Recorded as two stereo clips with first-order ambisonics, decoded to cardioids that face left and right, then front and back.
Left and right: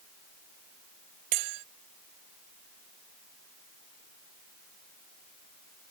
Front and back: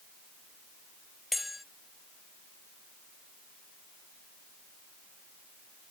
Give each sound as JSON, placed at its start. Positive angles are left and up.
{"t": 1.3, "sound": "a bell", "azimuth_deg": -85}